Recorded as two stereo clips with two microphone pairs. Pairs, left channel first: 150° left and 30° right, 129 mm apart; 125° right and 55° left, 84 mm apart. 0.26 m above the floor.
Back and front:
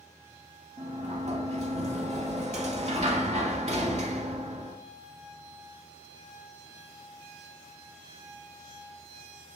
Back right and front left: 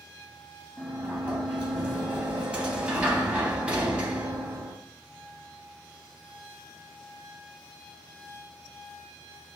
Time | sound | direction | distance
0.8 | a sliding door | 15° right | 0.6 m